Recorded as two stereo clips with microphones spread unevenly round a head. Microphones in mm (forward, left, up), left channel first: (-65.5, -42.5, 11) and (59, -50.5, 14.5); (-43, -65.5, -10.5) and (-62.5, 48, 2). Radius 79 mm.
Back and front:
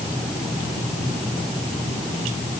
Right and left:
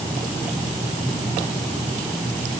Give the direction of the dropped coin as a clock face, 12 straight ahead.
I don't hear a dropped coin.